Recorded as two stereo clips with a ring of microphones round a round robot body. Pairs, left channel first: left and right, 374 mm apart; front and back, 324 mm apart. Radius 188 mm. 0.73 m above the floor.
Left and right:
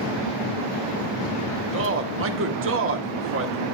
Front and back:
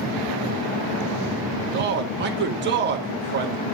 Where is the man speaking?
135° right, 1.3 m.